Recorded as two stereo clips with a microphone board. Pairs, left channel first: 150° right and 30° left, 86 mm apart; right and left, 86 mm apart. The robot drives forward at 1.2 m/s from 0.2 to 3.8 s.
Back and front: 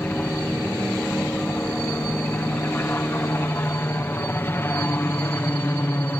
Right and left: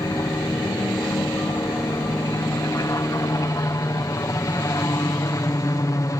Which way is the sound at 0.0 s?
90° right.